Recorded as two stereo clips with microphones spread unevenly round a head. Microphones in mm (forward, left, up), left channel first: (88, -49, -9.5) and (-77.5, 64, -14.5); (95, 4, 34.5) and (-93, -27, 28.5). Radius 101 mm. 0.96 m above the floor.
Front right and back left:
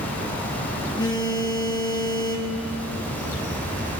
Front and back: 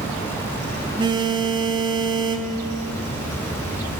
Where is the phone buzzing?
105° right, 1.2 m.